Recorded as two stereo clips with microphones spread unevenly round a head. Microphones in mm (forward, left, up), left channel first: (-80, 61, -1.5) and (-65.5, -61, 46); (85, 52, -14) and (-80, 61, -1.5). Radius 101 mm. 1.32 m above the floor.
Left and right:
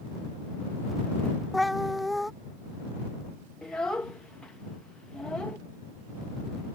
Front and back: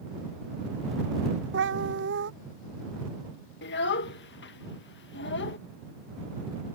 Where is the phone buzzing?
No phone buzzing in this recording.